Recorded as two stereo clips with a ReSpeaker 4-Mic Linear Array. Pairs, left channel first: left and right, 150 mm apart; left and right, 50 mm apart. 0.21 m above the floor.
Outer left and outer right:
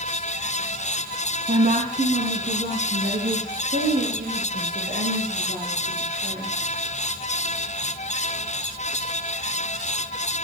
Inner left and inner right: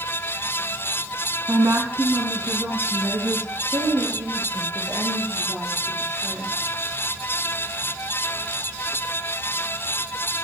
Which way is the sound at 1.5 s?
50° right (ahead or behind).